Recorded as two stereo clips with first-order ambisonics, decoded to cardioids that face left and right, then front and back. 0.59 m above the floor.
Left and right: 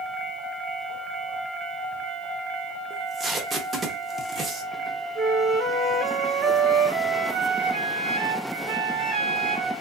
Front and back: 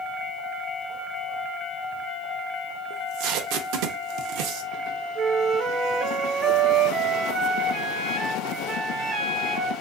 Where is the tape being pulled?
160° right, 0.7 m.